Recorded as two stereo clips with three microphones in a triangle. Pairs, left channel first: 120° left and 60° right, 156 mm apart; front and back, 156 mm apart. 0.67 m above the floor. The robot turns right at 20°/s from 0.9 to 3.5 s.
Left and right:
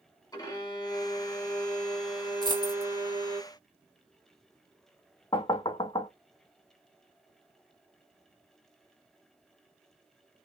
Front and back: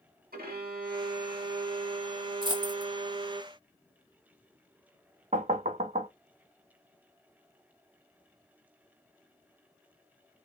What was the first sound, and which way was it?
A violin, 175° right.